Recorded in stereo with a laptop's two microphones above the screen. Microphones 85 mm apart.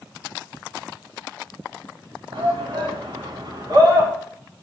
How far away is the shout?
About 2.5 m.